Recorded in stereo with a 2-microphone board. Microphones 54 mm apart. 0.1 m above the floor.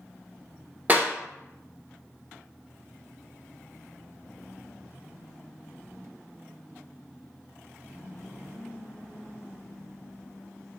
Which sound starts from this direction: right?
A clap, at 0.9 s.